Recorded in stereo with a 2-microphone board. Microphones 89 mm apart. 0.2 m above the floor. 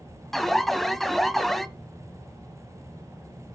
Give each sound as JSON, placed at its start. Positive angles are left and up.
{"t": 0.3, "sound": "an alarm", "side_deg": 0, "distance_m": 0.8}